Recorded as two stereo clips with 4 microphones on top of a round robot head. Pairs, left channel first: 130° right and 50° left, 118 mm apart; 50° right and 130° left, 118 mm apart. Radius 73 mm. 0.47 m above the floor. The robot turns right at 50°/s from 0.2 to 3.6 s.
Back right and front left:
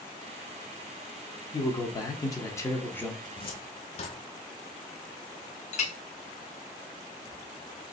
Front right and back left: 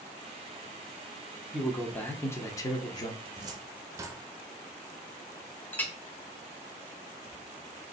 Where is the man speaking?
140° right, 0.7 m; by 3.1 s 60° right, 0.7 m.